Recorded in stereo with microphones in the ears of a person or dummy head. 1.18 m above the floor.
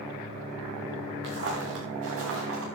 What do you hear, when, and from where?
1.2 s footsteps: 70° right (ahead or behind), 5 m; by 2.7 s 80° right, 6.5 m